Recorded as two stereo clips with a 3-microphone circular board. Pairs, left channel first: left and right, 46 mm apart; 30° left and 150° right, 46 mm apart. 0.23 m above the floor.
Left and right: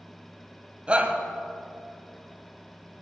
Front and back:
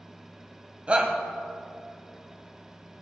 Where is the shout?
125° right, 1.7 m.